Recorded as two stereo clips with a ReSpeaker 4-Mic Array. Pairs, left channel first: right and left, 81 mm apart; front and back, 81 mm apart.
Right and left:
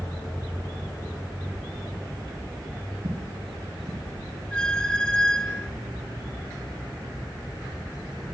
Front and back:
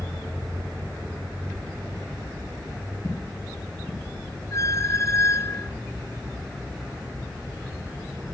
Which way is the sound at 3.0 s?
55° left.